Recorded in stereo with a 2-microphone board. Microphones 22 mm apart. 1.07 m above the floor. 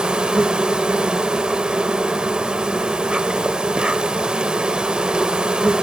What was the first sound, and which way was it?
An insect, 45° right (ahead or behind).